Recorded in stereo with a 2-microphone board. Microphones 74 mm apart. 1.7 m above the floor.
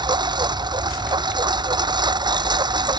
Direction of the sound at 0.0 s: 80° right.